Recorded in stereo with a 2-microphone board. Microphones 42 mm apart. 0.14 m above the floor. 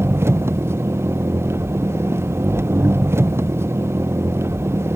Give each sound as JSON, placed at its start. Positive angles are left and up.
{"t": 0.0, "sound": "an engine running", "side_deg": -85}